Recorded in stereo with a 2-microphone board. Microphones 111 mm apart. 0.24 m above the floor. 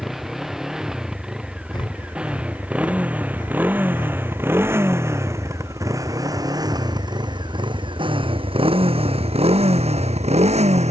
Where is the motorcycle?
5° right (ahead or behind); by 10.9 s 85° right.